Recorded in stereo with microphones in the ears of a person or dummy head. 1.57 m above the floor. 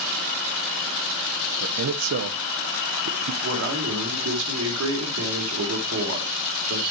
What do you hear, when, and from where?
1.6 s a man speaking: 65° right (ahead or behind), 0.8 m
3.4 s a man speaking: 85° right, 4 m